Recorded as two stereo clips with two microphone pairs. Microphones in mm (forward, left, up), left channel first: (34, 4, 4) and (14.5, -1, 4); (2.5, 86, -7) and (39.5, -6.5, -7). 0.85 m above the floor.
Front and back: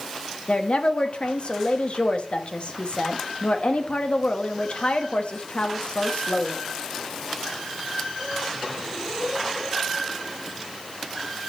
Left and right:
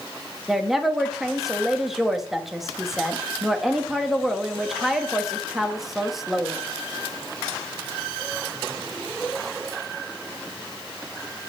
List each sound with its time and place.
0.5 s a woman speaking: 20° left, 1.1 m